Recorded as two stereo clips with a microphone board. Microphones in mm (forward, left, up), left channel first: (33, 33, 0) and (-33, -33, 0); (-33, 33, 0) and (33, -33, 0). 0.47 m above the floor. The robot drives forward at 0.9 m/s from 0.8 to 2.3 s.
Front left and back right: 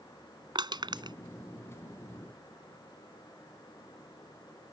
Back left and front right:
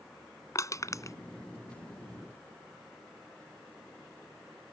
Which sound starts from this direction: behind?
Crushing, at 0.6 s.